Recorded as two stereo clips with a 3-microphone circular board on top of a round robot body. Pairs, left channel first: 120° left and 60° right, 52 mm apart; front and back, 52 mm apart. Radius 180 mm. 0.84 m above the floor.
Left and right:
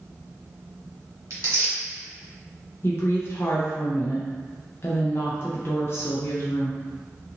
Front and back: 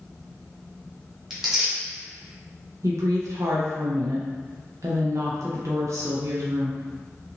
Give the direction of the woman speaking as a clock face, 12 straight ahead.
7 o'clock.